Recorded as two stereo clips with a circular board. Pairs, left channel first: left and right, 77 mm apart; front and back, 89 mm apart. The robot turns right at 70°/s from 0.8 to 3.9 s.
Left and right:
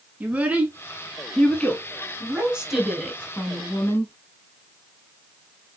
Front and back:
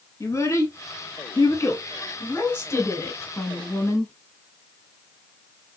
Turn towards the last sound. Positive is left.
turn(degrees=70)